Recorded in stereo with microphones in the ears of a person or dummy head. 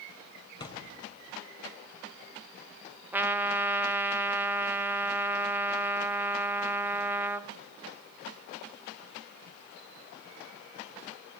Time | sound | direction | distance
0.6 | a thud | 20° left (ahead or behind) | 3.5 m
3.1 | a trumpet | 15° right (ahead or behind) | 1.0 m